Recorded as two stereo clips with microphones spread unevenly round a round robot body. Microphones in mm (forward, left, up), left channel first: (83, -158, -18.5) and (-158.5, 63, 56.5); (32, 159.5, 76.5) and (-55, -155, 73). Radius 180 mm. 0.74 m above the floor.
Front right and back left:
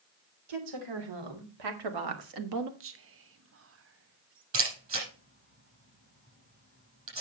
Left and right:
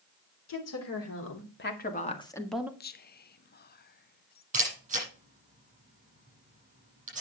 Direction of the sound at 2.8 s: 100° left.